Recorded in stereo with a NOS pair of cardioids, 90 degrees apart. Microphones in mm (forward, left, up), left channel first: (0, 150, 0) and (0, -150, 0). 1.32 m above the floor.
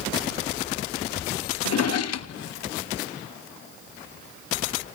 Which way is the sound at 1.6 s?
60° left.